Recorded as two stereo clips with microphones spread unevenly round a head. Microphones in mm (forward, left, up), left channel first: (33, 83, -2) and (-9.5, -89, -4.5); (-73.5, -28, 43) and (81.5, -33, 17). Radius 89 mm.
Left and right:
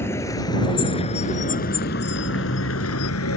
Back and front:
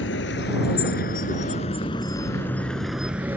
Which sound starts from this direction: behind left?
A vehicle, at 0.0 s.